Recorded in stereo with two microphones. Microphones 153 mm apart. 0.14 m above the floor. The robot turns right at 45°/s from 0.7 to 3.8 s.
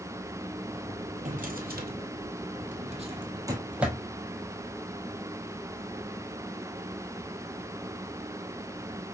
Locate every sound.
1.2 s a drawer: 55° right (ahead or behind), 0.9 m; by 4.0 s 10° right (ahead or behind), 0.9 m